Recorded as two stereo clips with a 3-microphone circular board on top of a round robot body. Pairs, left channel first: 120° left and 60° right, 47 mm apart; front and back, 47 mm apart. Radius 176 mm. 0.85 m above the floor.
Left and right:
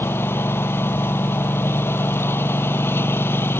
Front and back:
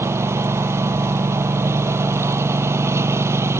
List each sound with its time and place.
0.0 s a lawn mower: 155° left